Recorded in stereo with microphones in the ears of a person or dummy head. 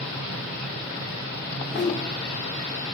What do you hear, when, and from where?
1.5 s a whoosh: centre (ahead or behind), 3.5 m